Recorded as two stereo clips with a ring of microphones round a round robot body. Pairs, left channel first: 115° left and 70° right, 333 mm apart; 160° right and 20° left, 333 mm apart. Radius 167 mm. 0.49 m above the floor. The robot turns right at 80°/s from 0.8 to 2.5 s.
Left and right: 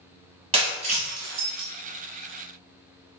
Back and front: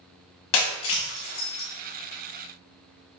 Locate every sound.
0.5 s breaking glass: 140° right, 1.5 m; by 1.7 s 70° right, 1.5 m